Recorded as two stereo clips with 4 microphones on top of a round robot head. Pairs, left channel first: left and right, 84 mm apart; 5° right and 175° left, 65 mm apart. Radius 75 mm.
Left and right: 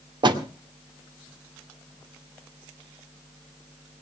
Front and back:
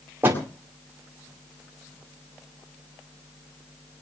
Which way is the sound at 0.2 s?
120° right.